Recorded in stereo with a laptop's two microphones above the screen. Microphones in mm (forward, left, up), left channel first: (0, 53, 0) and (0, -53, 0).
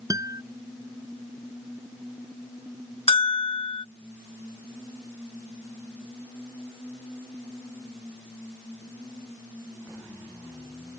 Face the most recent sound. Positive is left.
turn(degrees=65)  # may be behind; listen again after turning